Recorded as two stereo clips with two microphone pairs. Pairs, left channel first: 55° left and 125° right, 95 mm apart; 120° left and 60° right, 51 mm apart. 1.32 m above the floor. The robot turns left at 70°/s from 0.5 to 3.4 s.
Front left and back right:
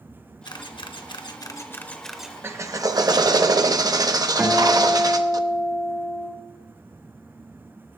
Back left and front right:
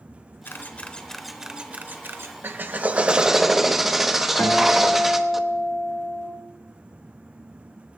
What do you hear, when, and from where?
0.5 s a camera shutter: 80° left, 0.9 m; by 2.4 s 50° right, 0.9 m
2.4 s a drill: 70° right, 0.8 m; by 5.4 s 140° right, 0.8 m
4.4 s a guitar: 170° left, 2.5 m